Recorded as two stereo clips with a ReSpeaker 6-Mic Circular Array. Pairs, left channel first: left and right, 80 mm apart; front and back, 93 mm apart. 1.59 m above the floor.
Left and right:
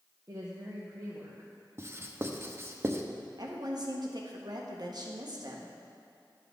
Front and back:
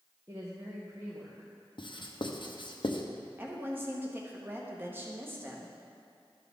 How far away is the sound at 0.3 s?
About 1.0 m.